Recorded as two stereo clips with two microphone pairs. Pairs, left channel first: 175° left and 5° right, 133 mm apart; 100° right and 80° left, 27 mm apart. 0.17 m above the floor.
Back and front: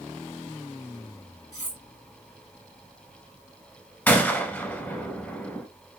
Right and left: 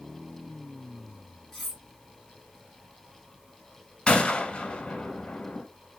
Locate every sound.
1.5 s cutlery clinking: 175° right, 1.2 m
4.1 s a gunshot: 120° right, 0.7 m